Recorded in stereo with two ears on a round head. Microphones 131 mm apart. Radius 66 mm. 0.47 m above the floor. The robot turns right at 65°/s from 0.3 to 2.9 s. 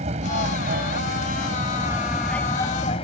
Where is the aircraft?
125° right; by 3.0 s 45° left.